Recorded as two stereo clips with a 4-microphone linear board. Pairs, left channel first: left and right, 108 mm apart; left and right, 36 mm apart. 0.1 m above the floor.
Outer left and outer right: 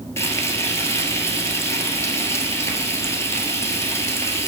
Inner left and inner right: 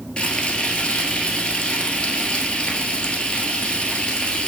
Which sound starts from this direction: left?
Frying, at 0.2 s.